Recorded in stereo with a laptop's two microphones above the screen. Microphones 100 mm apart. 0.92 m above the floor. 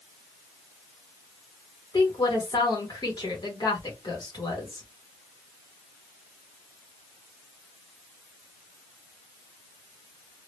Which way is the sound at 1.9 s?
45° left (ahead or behind).